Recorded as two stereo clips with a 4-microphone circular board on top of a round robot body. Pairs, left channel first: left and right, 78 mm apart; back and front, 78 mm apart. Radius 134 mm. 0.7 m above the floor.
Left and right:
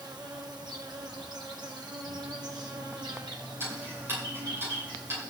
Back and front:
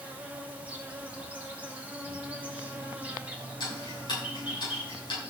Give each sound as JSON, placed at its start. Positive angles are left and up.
{"t": 0.0, "sound": "an insect", "azimuth_deg": -70, "distance_m": 2.5}
{"t": 3.6, "sound": "ticking", "azimuth_deg": -150, "distance_m": 7.0}